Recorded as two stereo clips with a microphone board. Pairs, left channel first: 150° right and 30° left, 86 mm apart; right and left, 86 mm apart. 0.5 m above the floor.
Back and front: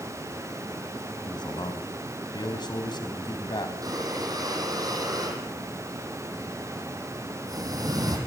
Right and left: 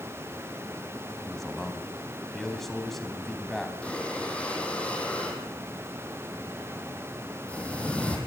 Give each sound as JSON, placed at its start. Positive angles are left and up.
{"t": 1.2, "sound": "a man speaking", "azimuth_deg": -175, "distance_m": 4.5}
{"t": 3.8, "sound": "breathing", "azimuth_deg": -15, "distance_m": 6.5}